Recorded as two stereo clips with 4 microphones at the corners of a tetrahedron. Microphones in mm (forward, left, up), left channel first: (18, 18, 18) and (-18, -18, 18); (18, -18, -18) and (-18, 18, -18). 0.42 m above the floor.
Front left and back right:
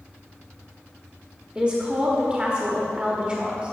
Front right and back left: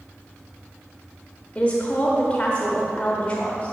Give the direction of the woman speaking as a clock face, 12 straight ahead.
3 o'clock.